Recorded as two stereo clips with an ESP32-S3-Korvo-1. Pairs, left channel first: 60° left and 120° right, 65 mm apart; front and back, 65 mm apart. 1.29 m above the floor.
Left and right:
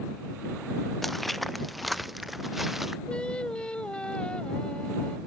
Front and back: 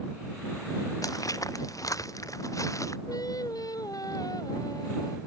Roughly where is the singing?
Ahead.